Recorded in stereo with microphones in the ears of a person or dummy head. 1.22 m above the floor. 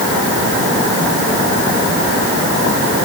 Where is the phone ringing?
I don't hear a phone ringing.